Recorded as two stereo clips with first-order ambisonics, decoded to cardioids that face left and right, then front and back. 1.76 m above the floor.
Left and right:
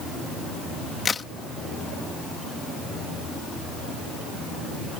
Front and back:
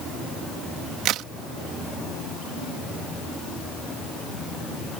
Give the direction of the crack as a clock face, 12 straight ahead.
7 o'clock.